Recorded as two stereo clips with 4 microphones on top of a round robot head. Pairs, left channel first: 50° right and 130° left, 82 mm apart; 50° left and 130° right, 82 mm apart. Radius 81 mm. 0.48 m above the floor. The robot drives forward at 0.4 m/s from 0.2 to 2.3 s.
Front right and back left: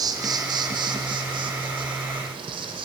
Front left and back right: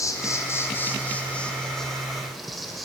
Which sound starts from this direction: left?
An insect, at 0.0 s.